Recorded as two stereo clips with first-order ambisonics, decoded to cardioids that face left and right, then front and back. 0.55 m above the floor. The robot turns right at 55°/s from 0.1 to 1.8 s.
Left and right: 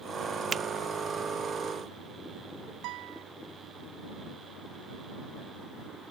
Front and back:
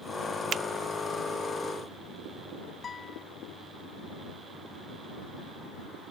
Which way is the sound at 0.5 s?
145° right.